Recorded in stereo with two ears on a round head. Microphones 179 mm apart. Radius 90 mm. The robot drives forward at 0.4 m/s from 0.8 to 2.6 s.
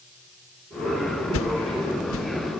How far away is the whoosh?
About 0.9 m.